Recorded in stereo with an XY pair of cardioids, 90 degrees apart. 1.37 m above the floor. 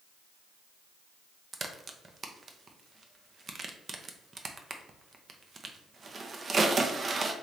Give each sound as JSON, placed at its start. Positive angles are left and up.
{"t": 1.5, "sound": "a crack", "azimuth_deg": -45, "distance_m": 0.7}